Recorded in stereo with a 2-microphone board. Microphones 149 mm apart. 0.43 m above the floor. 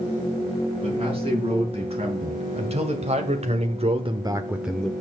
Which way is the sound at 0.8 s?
40° right (ahead or behind).